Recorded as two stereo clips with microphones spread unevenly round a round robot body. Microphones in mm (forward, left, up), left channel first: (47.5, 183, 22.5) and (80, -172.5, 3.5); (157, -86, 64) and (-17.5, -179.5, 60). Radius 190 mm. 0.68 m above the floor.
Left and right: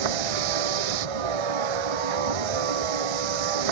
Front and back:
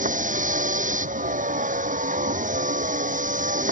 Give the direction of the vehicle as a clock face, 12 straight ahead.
3 o'clock.